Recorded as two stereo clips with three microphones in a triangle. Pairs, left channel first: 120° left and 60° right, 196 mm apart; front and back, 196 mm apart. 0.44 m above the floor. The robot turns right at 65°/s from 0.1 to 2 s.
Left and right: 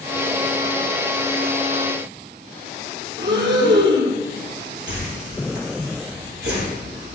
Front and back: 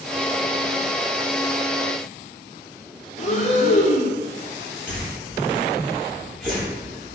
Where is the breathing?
50° right, 2 m.